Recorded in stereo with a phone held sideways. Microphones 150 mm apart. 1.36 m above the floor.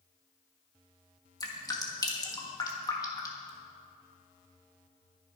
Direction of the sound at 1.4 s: 25° left (ahead or behind).